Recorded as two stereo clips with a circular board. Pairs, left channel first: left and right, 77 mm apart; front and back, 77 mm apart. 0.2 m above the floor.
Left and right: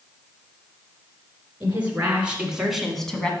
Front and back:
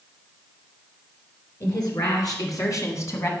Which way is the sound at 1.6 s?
25° right.